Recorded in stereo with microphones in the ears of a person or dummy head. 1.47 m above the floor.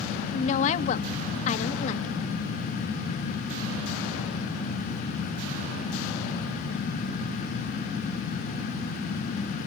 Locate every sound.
0.3 s a woman speaking: 40° left (ahead or behind), 1.4 m